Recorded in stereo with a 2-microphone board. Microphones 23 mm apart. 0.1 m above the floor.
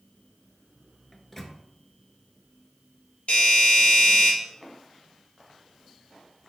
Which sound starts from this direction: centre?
A microwave, at 1.1 s.